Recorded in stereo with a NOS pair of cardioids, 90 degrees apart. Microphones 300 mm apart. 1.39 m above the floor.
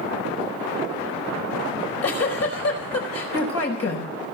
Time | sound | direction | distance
1.7 | a giggle | 50° left | 5 m